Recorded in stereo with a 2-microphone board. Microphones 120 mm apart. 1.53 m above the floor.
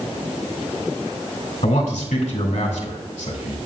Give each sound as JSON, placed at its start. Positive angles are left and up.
{"t": 1.6, "sound": "a man speaking", "side_deg": 80, "distance_m": 2.5}